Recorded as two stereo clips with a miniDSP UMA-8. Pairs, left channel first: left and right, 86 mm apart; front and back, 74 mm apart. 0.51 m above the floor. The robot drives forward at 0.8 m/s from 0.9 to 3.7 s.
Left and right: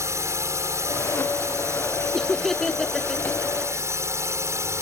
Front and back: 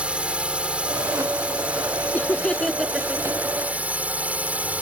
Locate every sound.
0.0 s a drone: 115° right; by 4.8 s 120° right
2.1 s laughter: 10° left; by 3.9 s 175° left